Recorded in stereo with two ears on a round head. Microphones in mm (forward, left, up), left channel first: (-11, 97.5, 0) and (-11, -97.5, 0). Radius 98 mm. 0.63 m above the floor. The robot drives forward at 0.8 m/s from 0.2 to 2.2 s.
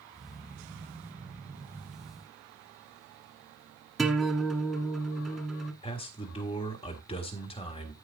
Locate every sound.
4.0 s a guitar: centre (ahead or behind), 1.3 m
5.8 s a man speaking: 25° left (ahead or behind), 1.6 m